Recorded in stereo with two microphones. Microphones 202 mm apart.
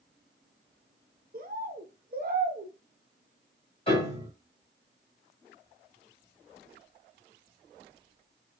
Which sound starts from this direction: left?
A piano, at 3.9 s.